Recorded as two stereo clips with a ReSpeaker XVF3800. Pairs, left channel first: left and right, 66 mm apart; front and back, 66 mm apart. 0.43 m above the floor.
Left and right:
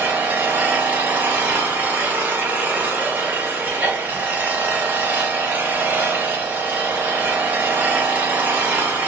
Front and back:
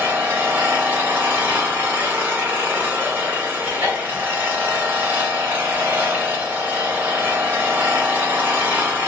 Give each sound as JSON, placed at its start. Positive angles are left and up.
{"t": 0.0, "sound": "an engine running", "azimuth_deg": -135, "distance_m": 0.8}